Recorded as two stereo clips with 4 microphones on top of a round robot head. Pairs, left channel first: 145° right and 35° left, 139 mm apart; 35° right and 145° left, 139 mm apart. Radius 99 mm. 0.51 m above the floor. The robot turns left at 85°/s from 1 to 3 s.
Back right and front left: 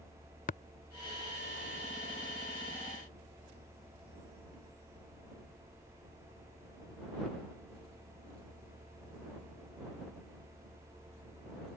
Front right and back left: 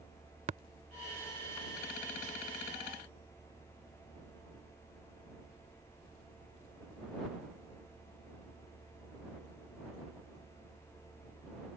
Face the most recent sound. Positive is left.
turn(degrees=15)